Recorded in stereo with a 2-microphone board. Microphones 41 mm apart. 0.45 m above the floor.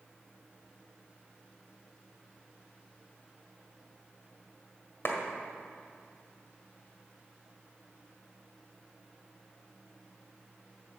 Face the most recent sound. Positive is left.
turn(degrees=60)  # may be behind; listen again after turning